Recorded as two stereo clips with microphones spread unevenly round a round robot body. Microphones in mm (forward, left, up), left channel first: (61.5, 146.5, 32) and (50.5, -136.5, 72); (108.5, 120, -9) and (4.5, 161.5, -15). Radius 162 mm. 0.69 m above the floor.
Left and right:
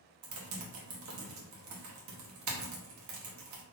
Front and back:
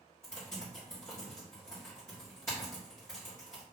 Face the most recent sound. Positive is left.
turn(degrees=-95)